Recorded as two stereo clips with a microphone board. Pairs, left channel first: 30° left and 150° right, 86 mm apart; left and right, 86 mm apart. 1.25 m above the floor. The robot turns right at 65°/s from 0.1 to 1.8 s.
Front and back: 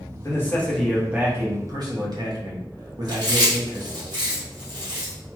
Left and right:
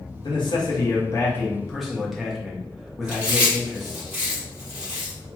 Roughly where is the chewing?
Behind.